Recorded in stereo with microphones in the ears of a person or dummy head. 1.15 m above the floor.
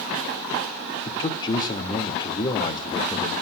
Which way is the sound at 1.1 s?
25° left (ahead or behind).